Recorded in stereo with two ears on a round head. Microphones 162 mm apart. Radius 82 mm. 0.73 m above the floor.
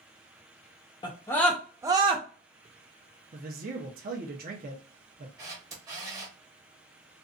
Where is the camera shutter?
20° right (ahead or behind), 0.8 m.